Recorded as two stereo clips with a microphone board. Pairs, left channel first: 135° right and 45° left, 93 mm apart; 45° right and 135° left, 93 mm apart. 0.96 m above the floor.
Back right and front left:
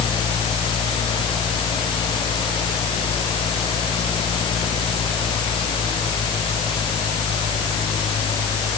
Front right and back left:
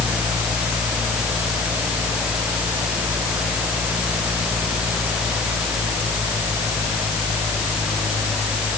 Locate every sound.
Only background noise.